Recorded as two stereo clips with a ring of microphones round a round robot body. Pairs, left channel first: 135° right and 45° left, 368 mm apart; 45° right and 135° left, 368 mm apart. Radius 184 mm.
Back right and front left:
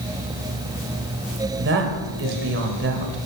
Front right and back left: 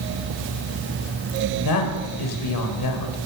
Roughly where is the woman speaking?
Ahead.